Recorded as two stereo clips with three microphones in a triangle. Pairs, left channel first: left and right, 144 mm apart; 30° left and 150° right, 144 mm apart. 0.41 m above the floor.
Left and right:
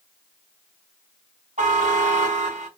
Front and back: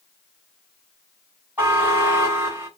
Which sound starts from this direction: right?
A buzzer, at 1.6 s.